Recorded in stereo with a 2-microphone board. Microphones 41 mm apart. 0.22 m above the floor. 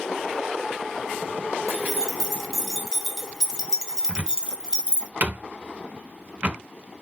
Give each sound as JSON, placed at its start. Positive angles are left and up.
{"t": 1.7, "sound": "keys jangling", "side_deg": -5, "distance_m": 1.8}
{"t": 4.1, "sound": "a cupboard door", "side_deg": -35, "distance_m": 0.6}